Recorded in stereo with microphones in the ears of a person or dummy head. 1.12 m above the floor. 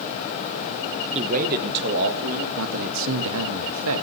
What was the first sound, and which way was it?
A man speaking, 35° right (ahead or behind).